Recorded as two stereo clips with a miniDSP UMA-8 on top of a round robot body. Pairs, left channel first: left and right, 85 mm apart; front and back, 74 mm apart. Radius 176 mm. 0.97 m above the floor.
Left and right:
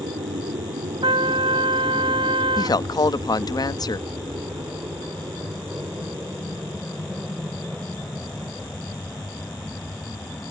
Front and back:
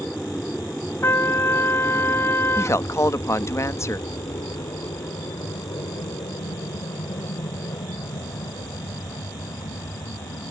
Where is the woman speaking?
50° left.